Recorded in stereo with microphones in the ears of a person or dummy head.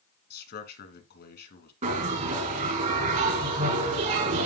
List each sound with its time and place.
0.3 s a man speaking: 65° left (ahead or behind), 2.5 m
1.8 s a bell: 45° right (ahead or behind), 6.5 m